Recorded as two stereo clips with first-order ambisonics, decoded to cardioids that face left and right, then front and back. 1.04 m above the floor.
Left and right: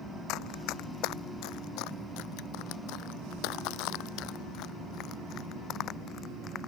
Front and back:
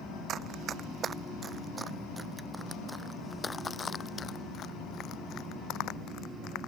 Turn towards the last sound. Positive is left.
turn(degrees=35)